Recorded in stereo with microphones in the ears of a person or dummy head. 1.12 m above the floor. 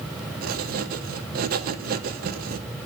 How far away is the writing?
About 1.1 m.